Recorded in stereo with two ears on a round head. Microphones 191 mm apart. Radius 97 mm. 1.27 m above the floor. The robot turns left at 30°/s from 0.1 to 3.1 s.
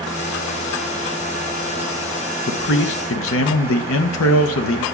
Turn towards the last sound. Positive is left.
turn(degrees=80)